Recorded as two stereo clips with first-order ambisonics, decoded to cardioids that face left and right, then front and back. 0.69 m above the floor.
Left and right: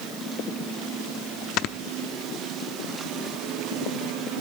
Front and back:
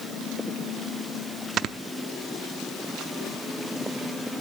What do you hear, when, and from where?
1.6 s snoring: 125° left, 0.6 m